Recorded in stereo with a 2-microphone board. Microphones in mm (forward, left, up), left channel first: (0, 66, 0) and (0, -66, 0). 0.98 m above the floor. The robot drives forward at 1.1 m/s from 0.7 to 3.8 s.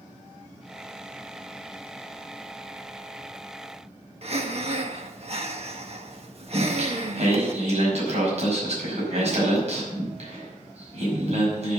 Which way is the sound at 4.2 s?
50° right (ahead or behind).